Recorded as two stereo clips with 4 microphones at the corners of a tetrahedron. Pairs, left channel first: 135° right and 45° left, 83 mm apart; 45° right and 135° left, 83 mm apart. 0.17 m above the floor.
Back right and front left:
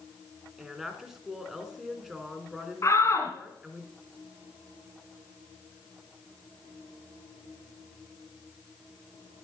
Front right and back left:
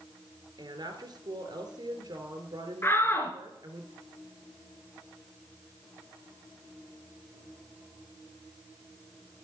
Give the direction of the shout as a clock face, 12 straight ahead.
3 o'clock.